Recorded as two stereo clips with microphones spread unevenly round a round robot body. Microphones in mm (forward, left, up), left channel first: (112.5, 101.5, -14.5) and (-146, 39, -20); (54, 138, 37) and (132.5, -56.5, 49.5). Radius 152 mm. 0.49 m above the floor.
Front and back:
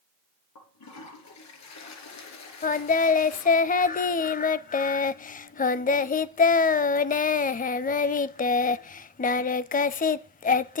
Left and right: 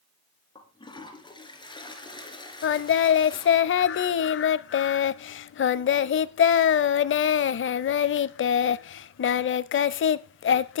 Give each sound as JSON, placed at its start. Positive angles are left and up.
{"t": 0.6, "sound": "a toilet flushing", "azimuth_deg": 40, "distance_m": 3.0}
{"t": 2.6, "sound": "singing", "azimuth_deg": 75, "distance_m": 0.5}